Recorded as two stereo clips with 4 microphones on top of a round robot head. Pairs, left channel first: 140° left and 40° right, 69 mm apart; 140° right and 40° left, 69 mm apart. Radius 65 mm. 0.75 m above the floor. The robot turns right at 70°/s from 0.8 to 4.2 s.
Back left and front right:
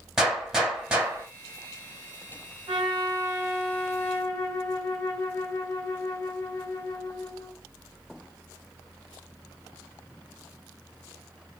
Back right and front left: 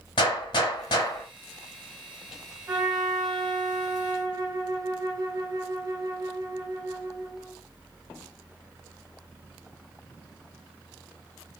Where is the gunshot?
125° right, 0.9 m; by 1.3 s 90° right, 0.9 m.